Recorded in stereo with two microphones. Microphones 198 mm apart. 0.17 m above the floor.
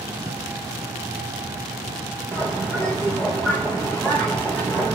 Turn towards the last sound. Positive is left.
turn(degrees=10)  # may be behind; listen again after turning